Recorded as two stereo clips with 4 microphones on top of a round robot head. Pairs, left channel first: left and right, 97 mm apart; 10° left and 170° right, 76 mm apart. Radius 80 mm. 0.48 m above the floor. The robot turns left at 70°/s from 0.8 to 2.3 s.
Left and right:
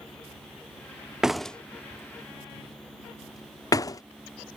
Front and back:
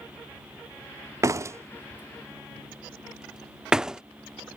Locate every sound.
1.2 s a door slam: 170° right; by 4.0 s 115° left